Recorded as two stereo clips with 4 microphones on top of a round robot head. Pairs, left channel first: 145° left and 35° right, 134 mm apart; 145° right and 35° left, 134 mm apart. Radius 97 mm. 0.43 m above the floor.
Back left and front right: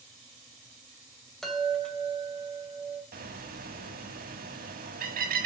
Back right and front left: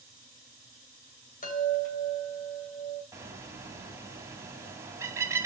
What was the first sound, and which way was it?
A chime, 130° right.